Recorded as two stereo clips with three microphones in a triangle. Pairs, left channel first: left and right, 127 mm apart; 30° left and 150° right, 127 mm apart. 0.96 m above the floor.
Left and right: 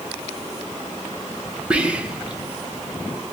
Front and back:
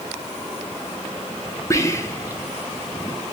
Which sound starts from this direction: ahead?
Whispering, at 1.7 s.